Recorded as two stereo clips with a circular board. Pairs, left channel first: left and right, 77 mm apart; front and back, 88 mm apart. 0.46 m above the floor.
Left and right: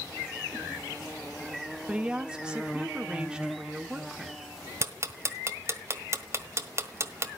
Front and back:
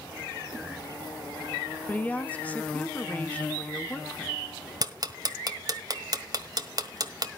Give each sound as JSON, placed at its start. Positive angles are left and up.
{"t": 1.9, "sound": "a woman speaking", "azimuth_deg": -35, "distance_m": 1.3}
{"t": 4.8, "sound": "ticking", "azimuth_deg": -140, "distance_m": 1.4}